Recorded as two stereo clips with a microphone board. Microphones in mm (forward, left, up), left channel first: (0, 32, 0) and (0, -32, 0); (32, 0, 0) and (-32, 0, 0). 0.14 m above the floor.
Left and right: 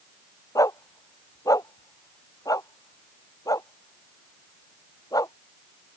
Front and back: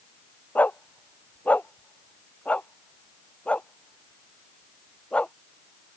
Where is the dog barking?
65° left; by 5.3 s 75° left.